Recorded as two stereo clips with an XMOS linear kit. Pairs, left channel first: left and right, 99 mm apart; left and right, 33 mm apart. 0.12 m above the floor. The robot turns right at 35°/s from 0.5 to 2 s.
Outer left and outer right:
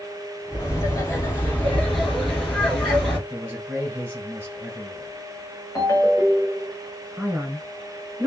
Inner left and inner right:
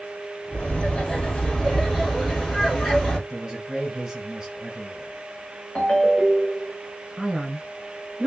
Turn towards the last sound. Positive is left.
turn(degrees=-15)  # may be behind; listen again after turning